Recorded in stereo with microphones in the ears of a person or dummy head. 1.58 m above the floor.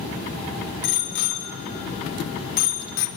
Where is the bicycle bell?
75° left (ahead or behind), 4 m; by 3.1 s 70° left (ahead or behind), 2 m.